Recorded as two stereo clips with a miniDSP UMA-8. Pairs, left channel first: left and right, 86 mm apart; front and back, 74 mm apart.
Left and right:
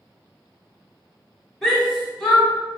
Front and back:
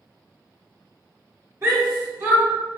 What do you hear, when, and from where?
1.6 s a shout: 170° left, 1.2 m